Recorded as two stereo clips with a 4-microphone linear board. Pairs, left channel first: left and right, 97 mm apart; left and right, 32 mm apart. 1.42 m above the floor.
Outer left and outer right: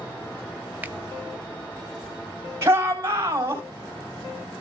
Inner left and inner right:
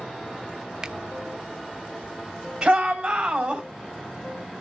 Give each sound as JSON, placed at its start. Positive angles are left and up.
{"t": 0.8, "sound": "a finger snap", "side_deg": -15, "distance_m": 0.5}
{"t": 2.6, "sound": "a shout", "side_deg": -25, "distance_m": 3.5}